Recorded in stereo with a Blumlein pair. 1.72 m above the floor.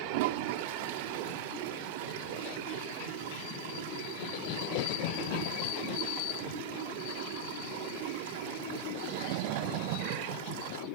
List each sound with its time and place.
0.1 s a toilet flushing: 50° right